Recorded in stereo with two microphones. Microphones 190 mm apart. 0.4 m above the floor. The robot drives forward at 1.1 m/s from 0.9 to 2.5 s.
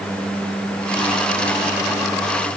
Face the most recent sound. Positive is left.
No sound to turn to.